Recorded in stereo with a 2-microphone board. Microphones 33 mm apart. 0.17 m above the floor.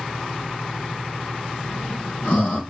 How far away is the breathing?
About 4 m.